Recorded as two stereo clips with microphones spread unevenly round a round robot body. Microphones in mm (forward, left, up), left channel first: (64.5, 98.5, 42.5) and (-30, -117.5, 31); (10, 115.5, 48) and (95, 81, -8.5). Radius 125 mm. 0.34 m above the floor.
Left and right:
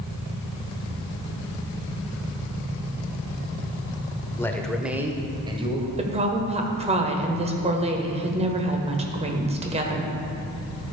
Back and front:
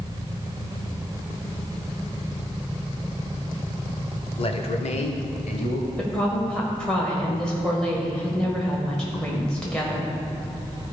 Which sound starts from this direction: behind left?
A man speaking, at 4.4 s.